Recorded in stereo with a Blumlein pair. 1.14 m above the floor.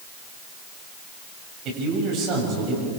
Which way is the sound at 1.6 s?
40° right.